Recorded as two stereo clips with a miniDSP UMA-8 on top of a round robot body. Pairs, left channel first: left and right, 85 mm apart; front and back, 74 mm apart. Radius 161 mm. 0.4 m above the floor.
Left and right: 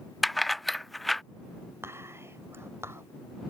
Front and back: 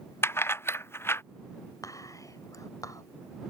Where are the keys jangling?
Straight ahead.